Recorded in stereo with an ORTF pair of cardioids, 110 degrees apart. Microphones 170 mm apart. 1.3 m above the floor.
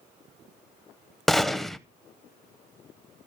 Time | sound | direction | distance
1.3 | a gunshot | straight ahead | 0.5 m